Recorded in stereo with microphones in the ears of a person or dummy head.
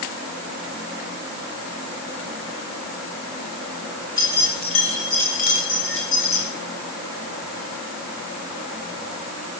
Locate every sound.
4.2 s keys jangling: 15° left (ahead or behind), 4 m; by 6.5 s 40° left (ahead or behind), 5 m